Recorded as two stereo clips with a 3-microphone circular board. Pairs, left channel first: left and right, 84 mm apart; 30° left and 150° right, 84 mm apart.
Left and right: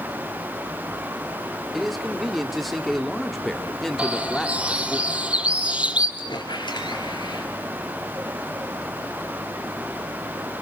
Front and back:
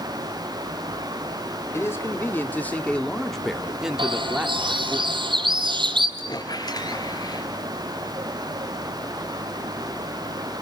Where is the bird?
165° right, 2 m.